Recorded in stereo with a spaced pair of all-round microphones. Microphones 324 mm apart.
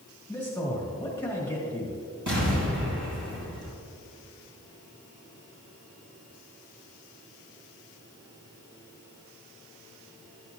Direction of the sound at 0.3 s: 5° left (ahead or behind).